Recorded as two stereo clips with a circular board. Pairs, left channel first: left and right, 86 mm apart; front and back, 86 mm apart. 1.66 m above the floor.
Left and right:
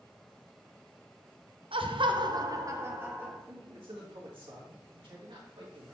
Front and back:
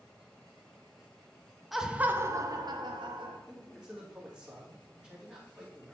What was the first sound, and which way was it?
Laughter, 90° right.